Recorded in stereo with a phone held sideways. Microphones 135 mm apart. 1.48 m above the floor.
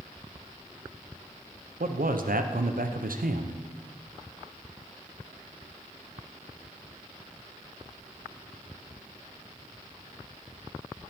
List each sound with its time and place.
1.8 s a man speaking: 80° right, 0.7 m